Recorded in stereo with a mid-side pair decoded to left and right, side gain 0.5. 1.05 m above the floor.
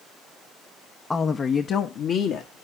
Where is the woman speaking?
20° left, 0.8 m; by 2.6 s 75° left, 1.8 m.